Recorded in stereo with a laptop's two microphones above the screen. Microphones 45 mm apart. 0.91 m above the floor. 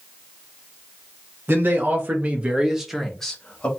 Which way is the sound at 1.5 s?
55° right (ahead or behind).